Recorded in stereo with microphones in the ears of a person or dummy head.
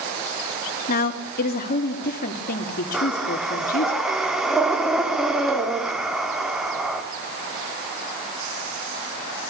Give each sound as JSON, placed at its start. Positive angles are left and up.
{"t": 0.9, "sound": "a woman speaking", "side_deg": 50, "distance_m": 3.0}
{"t": 2.9, "sound": "breathing", "side_deg": -5, "distance_m": 3.0}